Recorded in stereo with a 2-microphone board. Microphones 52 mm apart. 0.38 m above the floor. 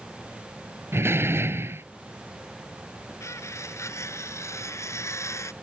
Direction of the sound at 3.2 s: 80° left.